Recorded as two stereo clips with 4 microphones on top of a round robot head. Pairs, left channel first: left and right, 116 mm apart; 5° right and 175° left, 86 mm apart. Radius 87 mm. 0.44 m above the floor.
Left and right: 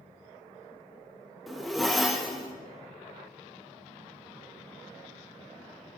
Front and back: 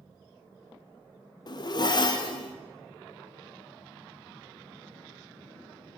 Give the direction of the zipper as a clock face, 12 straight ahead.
12 o'clock.